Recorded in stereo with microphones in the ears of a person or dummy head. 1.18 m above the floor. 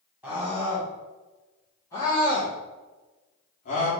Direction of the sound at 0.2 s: 5° right (ahead or behind).